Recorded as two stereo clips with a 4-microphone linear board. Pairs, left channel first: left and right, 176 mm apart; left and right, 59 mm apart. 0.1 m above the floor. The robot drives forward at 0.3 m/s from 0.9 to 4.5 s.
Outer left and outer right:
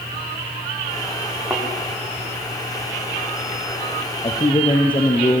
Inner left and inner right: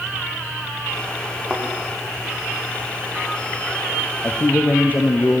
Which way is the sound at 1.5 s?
10° right (ahead or behind).